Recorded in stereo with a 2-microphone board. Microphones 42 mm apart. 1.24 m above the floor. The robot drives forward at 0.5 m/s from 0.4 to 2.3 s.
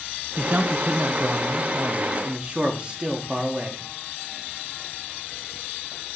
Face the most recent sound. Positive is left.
turn(degrees=-25)  # may be behind; listen again after turning